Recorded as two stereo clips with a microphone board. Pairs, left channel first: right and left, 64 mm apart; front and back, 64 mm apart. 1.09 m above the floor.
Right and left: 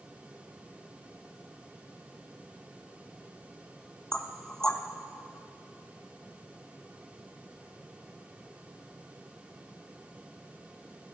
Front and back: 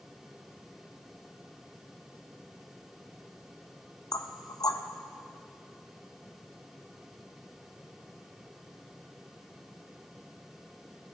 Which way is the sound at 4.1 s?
10° right.